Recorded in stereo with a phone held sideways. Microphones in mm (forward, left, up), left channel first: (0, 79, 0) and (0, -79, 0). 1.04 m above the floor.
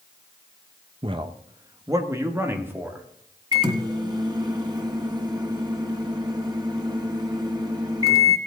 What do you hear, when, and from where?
1.0 s a man speaking: 35° right (ahead or behind), 0.8 m; by 3.0 s 10° right (ahead or behind), 2.5 m
3.5 s a microwave: 25° right (ahead or behind), 1.3 m